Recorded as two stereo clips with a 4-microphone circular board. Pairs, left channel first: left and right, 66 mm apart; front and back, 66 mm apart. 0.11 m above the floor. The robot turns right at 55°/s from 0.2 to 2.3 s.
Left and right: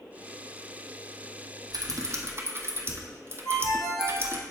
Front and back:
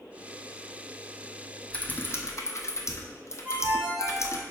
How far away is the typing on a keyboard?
About 0.9 m.